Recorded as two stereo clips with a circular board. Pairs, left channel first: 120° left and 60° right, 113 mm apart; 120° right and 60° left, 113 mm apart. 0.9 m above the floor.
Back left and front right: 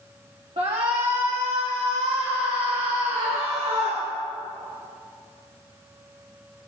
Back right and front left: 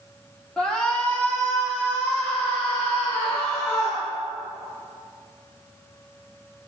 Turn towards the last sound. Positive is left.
turn(degrees=-60)